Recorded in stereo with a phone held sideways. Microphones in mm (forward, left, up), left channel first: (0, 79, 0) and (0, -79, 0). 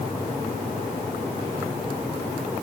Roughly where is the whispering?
No whispering in this recording.